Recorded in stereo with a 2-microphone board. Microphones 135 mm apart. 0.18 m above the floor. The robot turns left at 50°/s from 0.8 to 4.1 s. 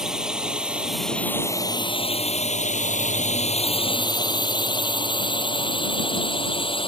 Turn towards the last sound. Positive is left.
turn(degrees=45)  # may be behind; listen again after turning